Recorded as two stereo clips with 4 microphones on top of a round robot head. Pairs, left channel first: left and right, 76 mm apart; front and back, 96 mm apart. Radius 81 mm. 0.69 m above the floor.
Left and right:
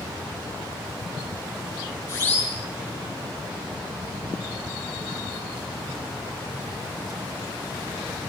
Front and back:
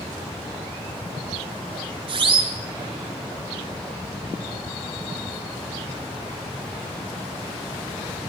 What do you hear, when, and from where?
2.1 s a siren: 155° left, 8.5 m